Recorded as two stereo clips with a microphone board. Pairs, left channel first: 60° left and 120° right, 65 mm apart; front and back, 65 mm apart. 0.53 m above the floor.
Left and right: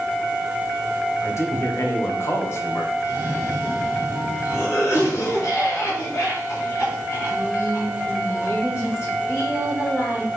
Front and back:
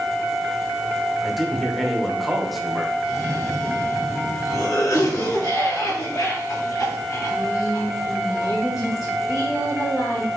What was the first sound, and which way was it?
A man speaking, 90° left.